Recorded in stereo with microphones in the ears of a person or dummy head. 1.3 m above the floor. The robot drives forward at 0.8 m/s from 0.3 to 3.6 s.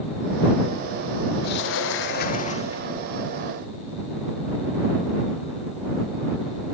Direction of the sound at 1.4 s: 60° left (ahead or behind).